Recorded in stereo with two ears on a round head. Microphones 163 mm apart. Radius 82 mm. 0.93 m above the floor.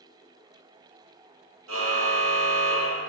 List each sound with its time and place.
1.7 s a car horn: 85° right, 9 m